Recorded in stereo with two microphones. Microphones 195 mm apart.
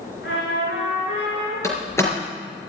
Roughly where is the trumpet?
Left.